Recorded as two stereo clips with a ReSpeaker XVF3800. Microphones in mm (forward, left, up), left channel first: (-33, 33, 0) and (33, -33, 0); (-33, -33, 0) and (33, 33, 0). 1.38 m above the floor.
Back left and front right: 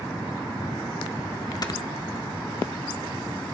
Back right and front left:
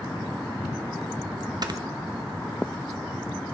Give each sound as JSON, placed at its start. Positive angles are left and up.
{"t": 1.6, "sound": "snoring", "azimuth_deg": 90, "distance_m": 1.0}